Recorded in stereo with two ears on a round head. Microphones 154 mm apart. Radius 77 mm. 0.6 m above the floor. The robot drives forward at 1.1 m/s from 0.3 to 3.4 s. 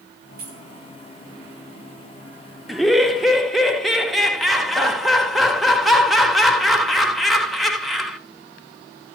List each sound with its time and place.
0.4 s keys jangling: 55° right (ahead or behind), 4 m
2.7 s laughter: centre (ahead or behind), 0.9 m